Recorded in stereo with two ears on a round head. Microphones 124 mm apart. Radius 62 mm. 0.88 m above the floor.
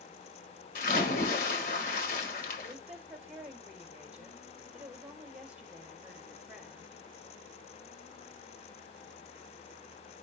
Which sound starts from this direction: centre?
A woman speaking, at 2.7 s.